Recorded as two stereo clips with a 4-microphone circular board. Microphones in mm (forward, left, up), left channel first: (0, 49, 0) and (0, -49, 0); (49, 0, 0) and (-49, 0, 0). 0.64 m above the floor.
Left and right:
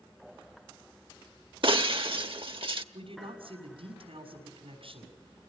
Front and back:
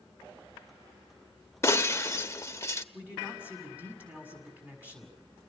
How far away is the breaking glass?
About 0.9 m.